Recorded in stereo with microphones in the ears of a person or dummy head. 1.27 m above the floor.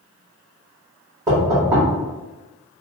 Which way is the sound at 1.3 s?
15° right (ahead or behind).